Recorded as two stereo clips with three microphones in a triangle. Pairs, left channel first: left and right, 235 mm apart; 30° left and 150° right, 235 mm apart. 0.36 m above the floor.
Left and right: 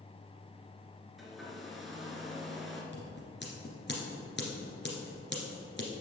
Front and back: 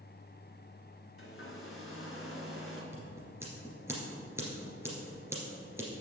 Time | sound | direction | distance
1.2 | a hair dryer | straight ahead | 1.5 m
2.9 | scissors | 130° left | 2 m